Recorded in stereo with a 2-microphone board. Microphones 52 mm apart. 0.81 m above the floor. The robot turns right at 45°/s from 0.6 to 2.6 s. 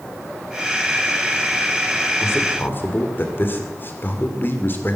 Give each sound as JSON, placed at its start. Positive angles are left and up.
{"t": 2.2, "sound": "a man speaking", "side_deg": 60, "distance_m": 2.0}